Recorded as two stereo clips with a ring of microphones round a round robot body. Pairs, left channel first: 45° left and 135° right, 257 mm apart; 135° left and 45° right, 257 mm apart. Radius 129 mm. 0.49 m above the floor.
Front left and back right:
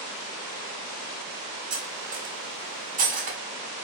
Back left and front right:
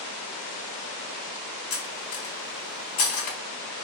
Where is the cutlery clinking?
165° left, 1.1 m.